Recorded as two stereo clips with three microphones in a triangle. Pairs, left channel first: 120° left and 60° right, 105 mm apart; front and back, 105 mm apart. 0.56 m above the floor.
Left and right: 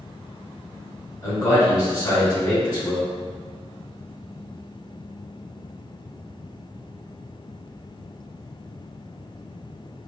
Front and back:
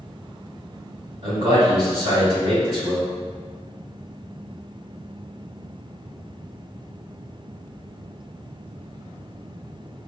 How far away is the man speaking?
About 2.0 m.